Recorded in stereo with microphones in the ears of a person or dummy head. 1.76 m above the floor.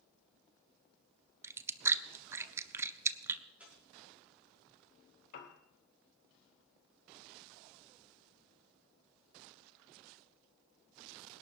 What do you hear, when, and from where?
1.4 s chewing: 20° right (ahead or behind), 0.6 m
3.6 s tearing paper: 15° right (ahead or behind), 5.5 m
5.3 s a piano: 60° left (ahead or behind), 2.5 m